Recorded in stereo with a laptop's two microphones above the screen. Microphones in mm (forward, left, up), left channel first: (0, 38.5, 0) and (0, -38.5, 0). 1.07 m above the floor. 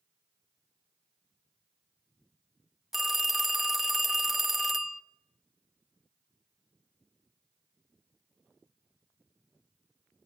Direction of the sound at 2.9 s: 5° right (ahead or behind).